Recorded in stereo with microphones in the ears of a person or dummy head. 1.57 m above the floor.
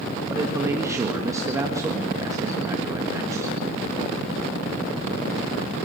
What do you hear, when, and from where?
0.3 s a man speaking: 20° right (ahead or behind), 1.8 m